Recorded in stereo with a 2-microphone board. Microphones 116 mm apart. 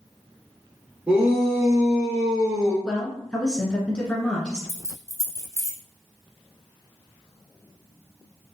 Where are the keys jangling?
30° left (ahead or behind), 1.0 m.